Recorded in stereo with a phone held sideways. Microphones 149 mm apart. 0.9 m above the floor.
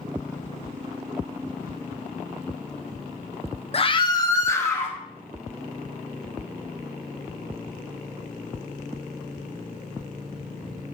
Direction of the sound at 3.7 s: 40° left (ahead or behind).